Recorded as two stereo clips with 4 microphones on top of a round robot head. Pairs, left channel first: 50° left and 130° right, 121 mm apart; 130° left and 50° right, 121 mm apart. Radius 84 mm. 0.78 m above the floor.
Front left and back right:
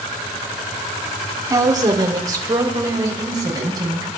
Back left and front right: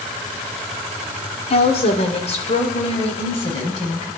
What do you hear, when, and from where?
1.5 s a woman speaking: 170° left, 1.7 m